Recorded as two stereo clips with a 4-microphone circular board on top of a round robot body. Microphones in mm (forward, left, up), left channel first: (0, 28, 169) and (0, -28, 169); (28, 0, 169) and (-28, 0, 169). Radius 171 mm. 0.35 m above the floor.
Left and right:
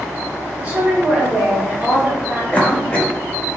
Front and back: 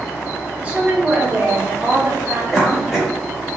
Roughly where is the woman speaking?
Behind right.